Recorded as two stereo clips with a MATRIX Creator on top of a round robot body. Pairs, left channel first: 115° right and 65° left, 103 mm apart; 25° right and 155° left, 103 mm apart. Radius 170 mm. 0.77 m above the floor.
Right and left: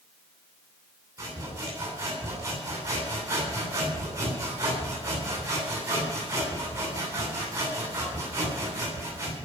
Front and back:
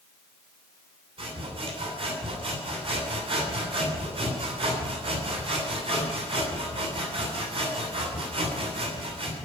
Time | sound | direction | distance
1.2 | sawing | 125° left | 9.5 m